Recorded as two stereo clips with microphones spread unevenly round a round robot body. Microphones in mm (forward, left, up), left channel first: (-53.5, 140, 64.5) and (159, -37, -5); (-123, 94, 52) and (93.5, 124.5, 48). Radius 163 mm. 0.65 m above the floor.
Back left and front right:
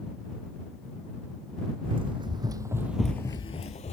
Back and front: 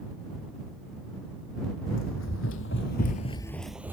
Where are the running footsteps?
120° right; by 3.9 s 90° left.